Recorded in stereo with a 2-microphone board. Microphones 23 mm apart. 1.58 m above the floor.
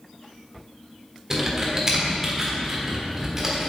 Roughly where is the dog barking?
No dog barking in this recording.